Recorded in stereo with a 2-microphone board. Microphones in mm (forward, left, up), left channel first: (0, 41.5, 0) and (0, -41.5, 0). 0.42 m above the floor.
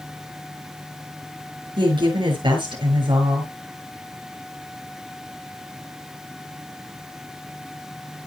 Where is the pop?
No pop in this recording.